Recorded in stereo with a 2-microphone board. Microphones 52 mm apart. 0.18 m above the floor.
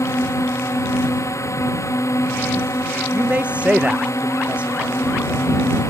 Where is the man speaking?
25° right (ahead or behind).